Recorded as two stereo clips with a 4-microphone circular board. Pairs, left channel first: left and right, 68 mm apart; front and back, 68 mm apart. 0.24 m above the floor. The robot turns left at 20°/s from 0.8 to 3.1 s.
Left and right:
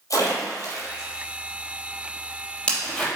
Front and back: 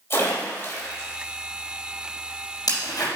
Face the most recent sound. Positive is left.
turn(degrees=10)